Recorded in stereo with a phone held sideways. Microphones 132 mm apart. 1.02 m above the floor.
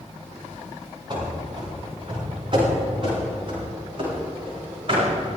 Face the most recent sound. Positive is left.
turn(degrees=-45)  # may be behind; listen again after turning